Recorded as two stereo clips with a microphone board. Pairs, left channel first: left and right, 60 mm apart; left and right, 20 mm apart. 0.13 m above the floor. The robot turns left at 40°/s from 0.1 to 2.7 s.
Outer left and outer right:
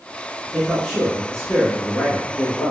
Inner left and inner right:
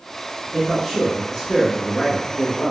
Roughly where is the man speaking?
Centre.